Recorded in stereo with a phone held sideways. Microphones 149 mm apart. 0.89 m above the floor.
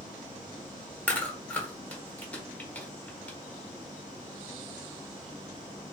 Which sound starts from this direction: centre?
Chewing, at 1.1 s.